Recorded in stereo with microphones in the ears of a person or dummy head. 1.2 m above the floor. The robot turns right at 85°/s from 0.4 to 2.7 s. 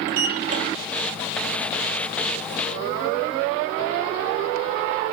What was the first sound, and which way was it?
A sliding door, 45° right (ahead or behind).